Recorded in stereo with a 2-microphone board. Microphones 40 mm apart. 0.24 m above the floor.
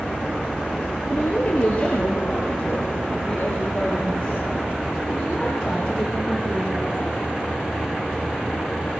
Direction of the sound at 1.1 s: 35° left (ahead or behind).